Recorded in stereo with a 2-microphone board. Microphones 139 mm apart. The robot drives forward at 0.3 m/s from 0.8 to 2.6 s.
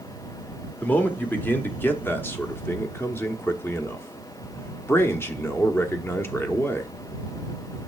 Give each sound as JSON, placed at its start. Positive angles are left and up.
{"t": 0.8, "sound": "a man speaking", "side_deg": 10, "distance_m": 1.3}